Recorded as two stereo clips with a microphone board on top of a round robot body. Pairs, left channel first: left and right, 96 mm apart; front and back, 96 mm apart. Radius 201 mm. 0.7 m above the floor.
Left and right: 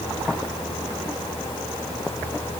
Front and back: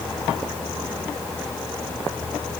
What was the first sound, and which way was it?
Only background noise.